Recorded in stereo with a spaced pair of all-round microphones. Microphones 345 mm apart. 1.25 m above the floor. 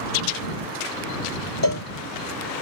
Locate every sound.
1.6 s a cowbell: 75° right (ahead or behind)